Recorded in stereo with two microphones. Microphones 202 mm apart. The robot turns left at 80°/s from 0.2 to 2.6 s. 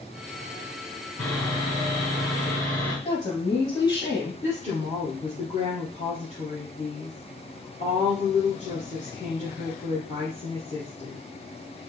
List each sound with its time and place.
1.2 s sawing: 165° left, 2.5 m; by 3.0 s 55° left, 2.5 m
3.0 s a woman speaking: 20° left (ahead or behind), 1.1 m
4.4 s a woman speaking: 35° left (ahead or behind), 2 m